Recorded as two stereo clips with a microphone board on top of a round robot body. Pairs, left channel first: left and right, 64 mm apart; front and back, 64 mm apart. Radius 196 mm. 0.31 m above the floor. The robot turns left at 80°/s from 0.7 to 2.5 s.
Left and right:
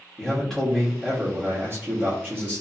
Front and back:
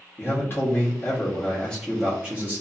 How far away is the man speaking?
About 1.4 m.